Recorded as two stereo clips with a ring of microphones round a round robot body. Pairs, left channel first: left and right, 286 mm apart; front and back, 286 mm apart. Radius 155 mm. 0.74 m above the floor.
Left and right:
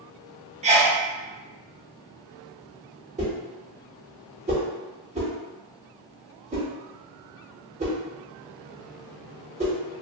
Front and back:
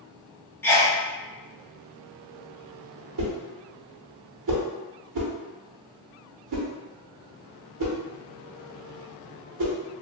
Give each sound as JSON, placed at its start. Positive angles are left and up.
{"t": 0.6, "sound": "a sneeze", "azimuth_deg": -70, "distance_m": 0.6}
{"t": 3.2, "sound": "a whoosh", "azimuth_deg": -160, "distance_m": 0.9}